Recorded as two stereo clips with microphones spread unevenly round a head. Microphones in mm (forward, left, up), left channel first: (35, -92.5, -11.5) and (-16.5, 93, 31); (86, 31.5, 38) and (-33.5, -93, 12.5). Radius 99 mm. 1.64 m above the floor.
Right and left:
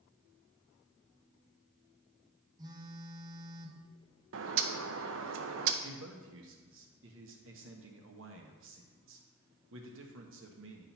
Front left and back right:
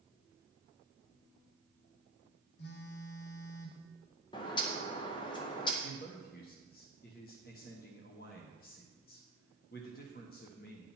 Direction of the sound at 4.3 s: 110° left.